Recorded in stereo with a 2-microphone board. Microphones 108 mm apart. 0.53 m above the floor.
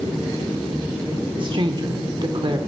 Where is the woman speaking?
50° right (ahead or behind), 1.2 m.